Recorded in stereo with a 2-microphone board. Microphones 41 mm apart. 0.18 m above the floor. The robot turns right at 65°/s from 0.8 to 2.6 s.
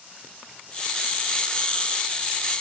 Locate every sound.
Only background noise.